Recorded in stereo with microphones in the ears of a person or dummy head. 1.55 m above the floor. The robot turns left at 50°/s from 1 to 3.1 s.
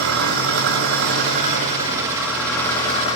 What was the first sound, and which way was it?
An engine running, 110° right.